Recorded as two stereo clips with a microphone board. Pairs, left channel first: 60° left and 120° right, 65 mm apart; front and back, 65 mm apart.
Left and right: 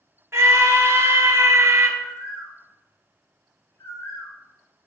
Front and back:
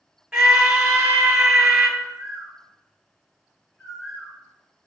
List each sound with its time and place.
0.3 s a scream: 110° right, 0.9 m
2.0 s a bird: 75° left, 3 m